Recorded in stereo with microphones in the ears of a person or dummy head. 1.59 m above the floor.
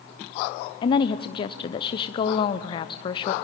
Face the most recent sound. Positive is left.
turn(degrees=25)  # may be behind; listen again after turning